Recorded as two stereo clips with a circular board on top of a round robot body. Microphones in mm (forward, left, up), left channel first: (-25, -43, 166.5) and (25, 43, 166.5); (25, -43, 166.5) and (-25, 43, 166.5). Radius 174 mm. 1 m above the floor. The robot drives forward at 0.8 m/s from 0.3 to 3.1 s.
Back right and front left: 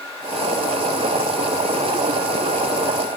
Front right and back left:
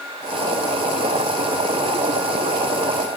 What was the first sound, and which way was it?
Only background noise.